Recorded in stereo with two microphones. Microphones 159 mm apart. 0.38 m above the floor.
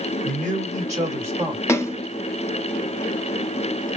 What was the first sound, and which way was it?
A man speaking, 55° right (ahead or behind).